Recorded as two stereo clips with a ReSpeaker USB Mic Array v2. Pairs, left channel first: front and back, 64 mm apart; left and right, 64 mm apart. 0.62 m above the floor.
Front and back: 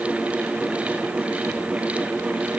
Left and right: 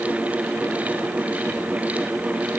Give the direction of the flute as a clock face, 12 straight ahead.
No flute in this recording.